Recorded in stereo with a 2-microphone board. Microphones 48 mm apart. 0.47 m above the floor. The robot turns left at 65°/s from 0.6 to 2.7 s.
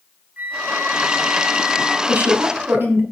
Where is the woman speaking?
60° right, 1.6 m; by 3.0 s 100° right, 1.6 m.